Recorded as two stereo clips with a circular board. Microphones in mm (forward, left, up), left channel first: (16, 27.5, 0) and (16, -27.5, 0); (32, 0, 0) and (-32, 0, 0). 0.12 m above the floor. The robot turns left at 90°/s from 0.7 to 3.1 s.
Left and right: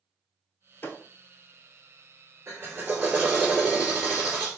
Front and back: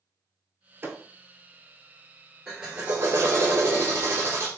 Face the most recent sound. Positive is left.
turn(degrees=-145)